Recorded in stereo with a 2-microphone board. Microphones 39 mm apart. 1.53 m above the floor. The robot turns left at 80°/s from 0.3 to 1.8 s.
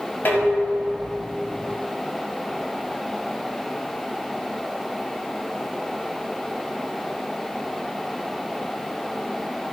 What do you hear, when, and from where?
0.2 s dishes clattering: 125° left, 6.5 m; by 1.2 s 55° left, 6.5 m